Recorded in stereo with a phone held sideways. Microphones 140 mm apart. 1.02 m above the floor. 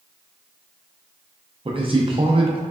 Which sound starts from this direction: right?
A man speaking, at 1.6 s.